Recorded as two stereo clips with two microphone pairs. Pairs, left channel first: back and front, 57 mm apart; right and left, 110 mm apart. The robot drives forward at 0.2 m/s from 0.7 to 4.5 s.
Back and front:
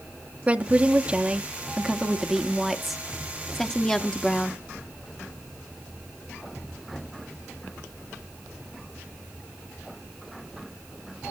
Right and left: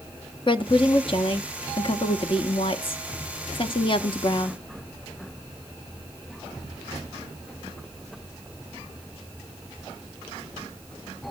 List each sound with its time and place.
0.5 s a woman speaking: 65° right, 1.1 m; by 4.6 s 110° right, 1.1 m